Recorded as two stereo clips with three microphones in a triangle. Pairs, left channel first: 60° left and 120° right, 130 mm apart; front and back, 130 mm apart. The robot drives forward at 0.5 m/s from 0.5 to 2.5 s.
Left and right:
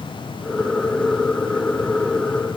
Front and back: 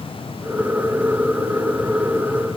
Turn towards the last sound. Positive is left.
No sound to turn to.